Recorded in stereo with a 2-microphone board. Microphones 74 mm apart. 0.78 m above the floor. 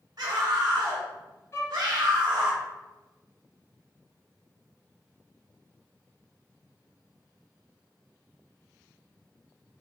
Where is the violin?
35° left (ahead or behind), 0.9 m.